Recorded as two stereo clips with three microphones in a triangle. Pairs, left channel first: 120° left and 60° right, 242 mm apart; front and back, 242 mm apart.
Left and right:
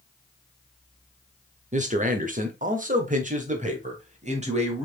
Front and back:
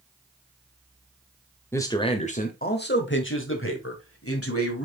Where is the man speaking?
70° right, 1.0 m; by 4.8 s straight ahead, 2.5 m.